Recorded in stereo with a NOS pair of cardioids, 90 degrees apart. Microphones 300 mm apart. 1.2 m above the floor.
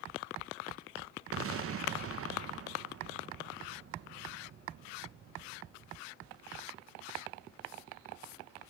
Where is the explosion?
50° right, 1.3 m.